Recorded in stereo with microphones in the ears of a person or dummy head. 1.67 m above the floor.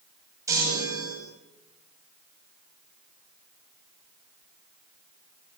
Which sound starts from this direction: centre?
A chime, at 0.5 s.